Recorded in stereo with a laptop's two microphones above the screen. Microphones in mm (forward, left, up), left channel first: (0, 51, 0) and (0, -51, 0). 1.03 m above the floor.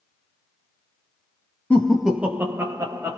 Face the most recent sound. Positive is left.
turn(degrees=-40)  # may be behind; listen again after turning